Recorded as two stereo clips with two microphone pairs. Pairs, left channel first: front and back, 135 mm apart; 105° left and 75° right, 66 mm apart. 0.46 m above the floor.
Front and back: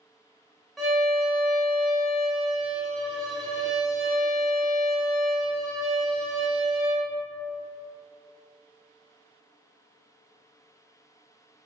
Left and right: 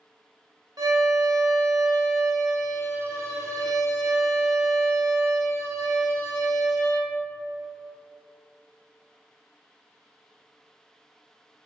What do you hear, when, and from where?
0.8 s a violin: 90° right, 0.7 m